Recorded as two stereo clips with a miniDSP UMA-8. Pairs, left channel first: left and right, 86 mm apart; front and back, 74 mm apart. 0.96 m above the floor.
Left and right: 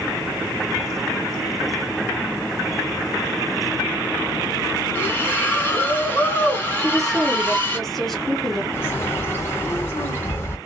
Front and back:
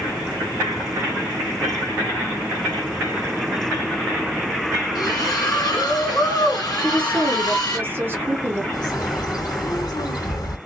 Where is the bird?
30° left, 1.6 m.